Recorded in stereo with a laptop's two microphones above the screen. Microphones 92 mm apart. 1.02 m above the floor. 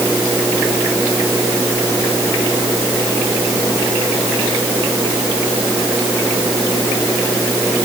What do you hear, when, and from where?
Only background noise.